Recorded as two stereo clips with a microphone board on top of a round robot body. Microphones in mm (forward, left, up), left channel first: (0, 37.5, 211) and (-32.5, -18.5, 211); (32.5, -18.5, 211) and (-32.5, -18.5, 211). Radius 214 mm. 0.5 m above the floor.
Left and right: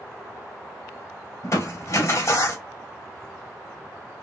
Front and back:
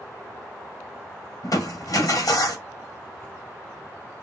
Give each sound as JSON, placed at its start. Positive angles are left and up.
{"t": 1.4, "sound": "crushing", "azimuth_deg": 25, "distance_m": 2.5}